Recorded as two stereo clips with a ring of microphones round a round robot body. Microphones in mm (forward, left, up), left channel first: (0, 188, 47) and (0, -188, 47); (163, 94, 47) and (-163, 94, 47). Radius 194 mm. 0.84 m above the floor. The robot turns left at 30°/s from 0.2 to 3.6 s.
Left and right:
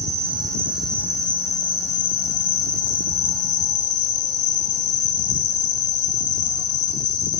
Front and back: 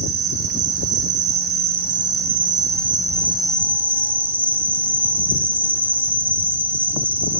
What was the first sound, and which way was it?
An insect, 160° right.